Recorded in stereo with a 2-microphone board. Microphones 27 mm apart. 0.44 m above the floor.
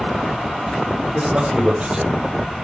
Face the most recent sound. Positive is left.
turn(degrees=-30)  # may be behind; listen again after turning